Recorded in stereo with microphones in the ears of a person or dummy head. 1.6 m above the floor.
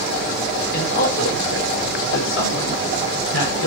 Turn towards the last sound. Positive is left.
turn(degrees=85)